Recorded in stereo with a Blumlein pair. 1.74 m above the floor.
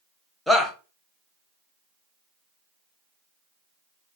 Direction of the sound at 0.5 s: 5° left.